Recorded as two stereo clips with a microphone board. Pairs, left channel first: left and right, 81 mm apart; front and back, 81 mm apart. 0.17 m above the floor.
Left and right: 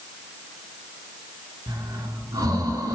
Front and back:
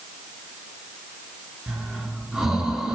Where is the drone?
I don't hear a drone.